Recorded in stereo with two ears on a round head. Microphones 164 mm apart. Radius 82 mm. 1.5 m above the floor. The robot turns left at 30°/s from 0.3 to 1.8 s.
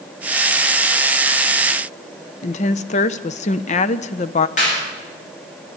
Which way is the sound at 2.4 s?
40° left (ahead or behind).